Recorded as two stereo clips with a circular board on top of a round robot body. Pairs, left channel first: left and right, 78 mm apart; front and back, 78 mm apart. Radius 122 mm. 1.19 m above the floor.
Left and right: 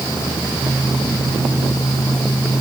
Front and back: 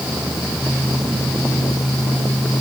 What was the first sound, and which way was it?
Only background noise.